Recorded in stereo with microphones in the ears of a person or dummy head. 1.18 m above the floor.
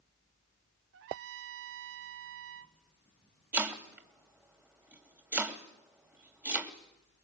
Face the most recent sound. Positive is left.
turn(degrees=-10)  # may be behind; listen again after turning